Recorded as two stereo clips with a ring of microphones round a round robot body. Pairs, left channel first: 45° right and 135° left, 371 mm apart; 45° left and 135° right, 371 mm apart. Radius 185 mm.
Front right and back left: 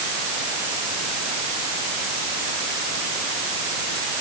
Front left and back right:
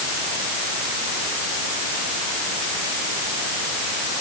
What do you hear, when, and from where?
Only background noise.